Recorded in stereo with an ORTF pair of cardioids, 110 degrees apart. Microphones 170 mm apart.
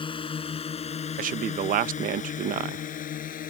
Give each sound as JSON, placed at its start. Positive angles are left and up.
{"t": 0.0, "sound": "a drone", "azimuth_deg": 30}
{"t": 1.2, "sound": "a man speaking", "azimuth_deg": -55}